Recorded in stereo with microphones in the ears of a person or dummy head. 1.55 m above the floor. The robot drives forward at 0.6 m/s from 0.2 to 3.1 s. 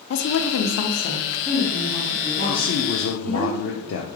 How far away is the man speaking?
About 0.6 m.